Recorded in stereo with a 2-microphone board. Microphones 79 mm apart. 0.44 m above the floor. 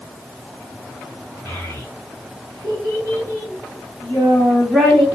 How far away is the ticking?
No ticking in this recording.